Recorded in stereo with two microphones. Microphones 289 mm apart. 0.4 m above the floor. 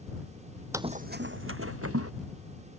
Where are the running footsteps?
10° right (ahead or behind); by 2.1 s 50° right (ahead or behind).